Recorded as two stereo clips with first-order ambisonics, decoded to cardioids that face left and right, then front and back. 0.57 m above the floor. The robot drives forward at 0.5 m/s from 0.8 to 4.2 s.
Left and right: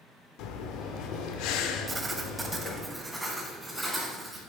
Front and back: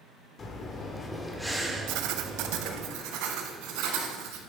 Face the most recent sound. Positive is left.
turn(degrees=-175)